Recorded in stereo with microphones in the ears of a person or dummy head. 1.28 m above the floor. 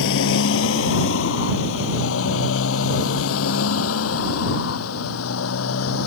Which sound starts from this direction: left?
A motorcycle, at 0.0 s.